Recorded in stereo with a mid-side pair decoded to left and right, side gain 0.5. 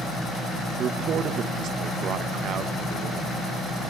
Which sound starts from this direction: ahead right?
A man speaking, at 0.8 s.